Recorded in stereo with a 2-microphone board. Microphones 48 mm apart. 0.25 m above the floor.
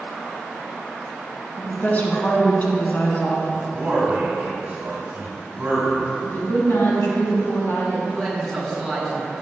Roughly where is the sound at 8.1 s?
Centre.